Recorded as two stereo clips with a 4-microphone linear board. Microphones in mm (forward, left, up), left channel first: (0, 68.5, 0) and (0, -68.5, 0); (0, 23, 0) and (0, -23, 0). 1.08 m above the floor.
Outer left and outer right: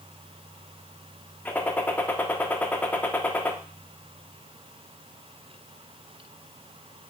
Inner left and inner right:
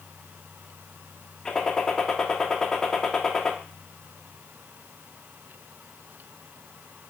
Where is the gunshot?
10° left (ahead or behind), 0.6 m.